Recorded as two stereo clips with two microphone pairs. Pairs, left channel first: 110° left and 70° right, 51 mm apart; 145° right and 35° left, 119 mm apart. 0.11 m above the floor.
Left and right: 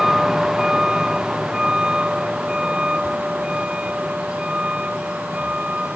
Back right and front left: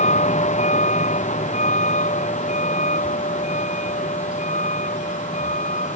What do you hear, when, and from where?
0.0 s a vehicle: 155° right; by 6.0 s 140° right